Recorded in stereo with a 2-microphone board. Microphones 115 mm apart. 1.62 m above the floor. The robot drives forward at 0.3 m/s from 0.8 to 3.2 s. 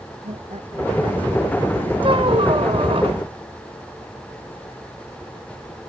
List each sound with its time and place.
0.2 s laughter: 70° right (ahead or behind); by 3.0 s 65° right (ahead or behind)
2.0 s a squeak: 55° right (ahead or behind); by 3.2 s 60° right (ahead or behind)